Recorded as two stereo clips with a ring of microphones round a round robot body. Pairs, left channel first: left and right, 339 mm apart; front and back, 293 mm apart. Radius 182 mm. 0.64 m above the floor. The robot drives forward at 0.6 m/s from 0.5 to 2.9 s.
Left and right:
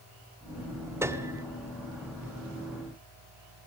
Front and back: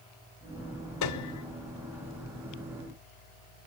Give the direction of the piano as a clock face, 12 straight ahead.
12 o'clock.